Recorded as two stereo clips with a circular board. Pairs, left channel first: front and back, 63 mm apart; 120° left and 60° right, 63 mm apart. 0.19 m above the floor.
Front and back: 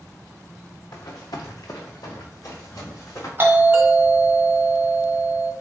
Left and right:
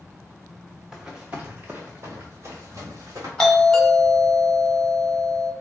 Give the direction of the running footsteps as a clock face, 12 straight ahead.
11 o'clock.